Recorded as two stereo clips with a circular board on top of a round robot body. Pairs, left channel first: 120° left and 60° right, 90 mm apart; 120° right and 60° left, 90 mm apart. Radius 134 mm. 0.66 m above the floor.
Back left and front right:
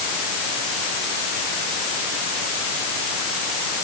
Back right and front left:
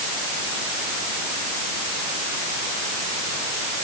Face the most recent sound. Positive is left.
No sound to turn to.